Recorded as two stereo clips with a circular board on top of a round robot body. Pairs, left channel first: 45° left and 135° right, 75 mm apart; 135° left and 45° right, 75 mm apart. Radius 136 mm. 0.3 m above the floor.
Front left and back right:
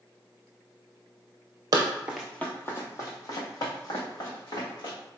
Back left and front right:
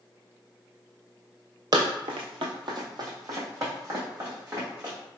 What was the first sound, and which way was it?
Running footsteps, 90° right.